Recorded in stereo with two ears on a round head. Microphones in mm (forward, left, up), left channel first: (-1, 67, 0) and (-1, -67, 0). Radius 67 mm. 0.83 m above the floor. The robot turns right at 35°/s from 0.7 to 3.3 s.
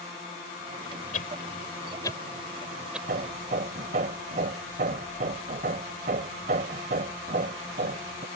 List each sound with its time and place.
1.1 s a whoosh: 55° left (ahead or behind); by 3.0 s 10° right (ahead or behind)
3.1 s hammering: 65° right (ahead or behind); by 8.3 s 55° right (ahead or behind)